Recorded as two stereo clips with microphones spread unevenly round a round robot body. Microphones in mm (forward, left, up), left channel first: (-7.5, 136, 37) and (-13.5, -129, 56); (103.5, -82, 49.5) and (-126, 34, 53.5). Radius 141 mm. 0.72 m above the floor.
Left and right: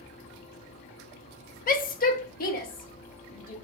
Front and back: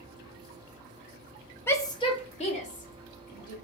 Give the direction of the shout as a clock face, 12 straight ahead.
10 o'clock.